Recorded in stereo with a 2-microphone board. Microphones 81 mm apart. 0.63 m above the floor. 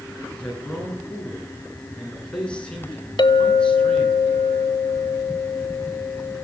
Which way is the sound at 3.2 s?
70° left (ahead or behind).